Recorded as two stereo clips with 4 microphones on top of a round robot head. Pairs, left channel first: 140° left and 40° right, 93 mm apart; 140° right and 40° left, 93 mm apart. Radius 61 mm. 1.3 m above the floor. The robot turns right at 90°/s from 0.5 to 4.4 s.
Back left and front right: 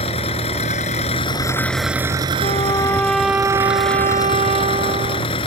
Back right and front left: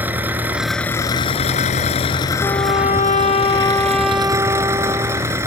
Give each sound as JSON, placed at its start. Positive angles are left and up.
{"t": 0.0, "sound": "an engine running", "azimuth_deg": 115}
{"t": 2.4, "sound": "a trumpet", "azimuth_deg": 160}